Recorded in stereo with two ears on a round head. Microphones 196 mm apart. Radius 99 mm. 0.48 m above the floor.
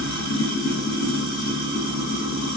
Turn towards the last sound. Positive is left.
turn(degrees=70)  # may be behind; listen again after turning